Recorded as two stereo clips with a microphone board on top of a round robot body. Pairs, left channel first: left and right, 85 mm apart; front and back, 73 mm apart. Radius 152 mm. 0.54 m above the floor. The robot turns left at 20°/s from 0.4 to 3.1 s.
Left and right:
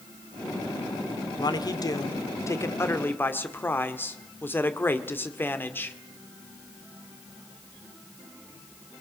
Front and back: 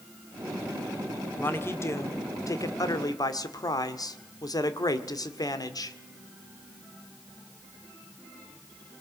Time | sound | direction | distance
1.4 | a man speaking | 60° left | 2.0 m